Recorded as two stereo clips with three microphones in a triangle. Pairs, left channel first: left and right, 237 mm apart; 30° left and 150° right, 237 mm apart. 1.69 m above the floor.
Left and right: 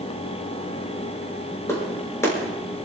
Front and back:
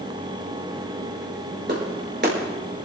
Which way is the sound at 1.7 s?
170° left.